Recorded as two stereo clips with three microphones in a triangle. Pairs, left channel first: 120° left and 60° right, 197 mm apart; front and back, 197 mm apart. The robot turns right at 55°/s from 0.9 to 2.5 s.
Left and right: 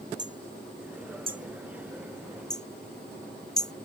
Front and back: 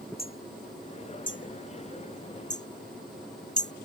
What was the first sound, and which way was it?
Hammering, 40° right.